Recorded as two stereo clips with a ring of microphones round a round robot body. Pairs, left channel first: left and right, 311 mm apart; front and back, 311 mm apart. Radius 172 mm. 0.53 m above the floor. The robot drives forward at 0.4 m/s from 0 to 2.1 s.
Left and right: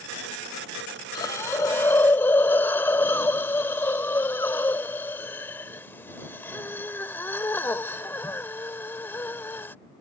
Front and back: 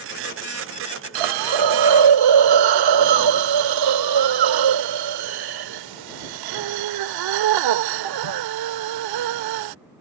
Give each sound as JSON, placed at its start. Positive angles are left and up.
{"t": 1.1, "sound": "a hiss", "azimuth_deg": 170}